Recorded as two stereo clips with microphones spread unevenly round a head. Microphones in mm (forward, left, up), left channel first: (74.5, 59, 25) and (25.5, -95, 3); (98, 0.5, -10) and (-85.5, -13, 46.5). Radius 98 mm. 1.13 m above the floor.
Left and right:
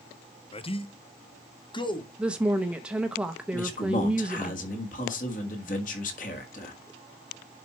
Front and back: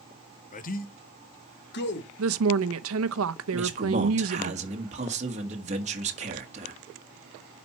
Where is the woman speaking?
165° left, 0.8 m.